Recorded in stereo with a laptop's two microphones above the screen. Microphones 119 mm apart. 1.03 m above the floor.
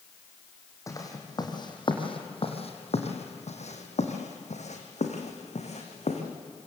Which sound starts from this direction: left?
Footsteps, at 0.9 s.